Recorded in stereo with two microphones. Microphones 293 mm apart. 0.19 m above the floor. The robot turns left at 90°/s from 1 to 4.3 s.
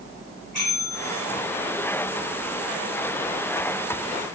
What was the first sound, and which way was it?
A bell, 85° left.